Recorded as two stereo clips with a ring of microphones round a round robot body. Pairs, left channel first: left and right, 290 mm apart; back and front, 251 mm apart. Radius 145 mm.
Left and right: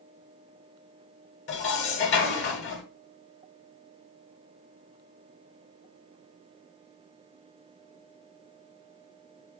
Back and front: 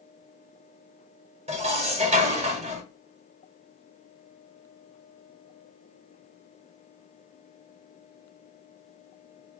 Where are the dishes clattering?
55° left, 1.0 m.